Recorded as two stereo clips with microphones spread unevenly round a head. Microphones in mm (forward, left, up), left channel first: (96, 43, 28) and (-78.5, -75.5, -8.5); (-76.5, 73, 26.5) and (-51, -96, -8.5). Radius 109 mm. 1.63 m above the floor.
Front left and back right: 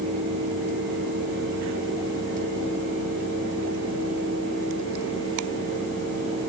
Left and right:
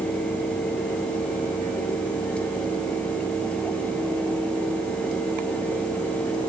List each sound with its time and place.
Only background noise.